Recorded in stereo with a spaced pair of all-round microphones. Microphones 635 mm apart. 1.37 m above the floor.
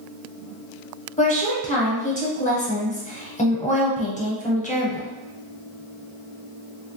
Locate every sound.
1.2 s a woman speaking: 10° left (ahead or behind), 0.9 m